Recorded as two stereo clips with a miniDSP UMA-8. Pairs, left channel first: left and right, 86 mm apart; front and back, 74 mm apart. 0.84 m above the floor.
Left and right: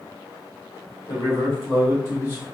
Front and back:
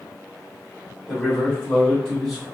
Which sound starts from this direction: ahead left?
A man speaking, at 1.1 s.